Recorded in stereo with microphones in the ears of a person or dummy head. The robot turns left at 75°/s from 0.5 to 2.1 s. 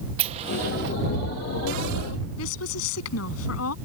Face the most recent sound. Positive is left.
turn(degrees=80)